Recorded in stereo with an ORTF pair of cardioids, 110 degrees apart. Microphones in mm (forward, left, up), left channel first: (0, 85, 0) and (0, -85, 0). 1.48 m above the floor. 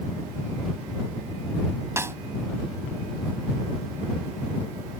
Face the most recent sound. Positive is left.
turn(degrees=-15)